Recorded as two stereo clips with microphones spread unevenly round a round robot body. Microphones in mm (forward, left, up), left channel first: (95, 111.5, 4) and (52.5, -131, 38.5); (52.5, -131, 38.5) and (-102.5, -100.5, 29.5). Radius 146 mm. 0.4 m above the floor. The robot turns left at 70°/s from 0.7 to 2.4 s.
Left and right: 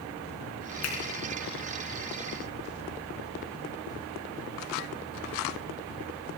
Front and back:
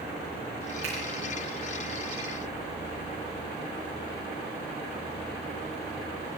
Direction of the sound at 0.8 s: 105° left.